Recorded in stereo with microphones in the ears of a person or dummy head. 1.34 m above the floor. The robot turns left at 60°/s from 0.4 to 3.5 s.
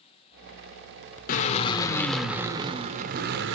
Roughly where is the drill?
Ahead left.